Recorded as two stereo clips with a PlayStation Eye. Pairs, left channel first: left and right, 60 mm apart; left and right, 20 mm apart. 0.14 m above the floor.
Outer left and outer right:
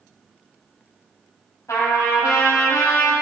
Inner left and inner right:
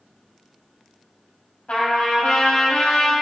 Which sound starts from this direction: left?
A trumpet, at 1.7 s.